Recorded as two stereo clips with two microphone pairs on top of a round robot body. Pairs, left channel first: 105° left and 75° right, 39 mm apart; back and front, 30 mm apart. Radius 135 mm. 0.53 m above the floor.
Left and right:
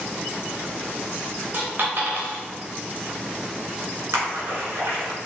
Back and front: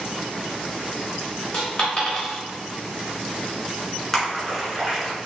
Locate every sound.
1.5 s a dropped coin: 120° right, 1.1 m
4.1 s a splash: 95° right, 1.7 m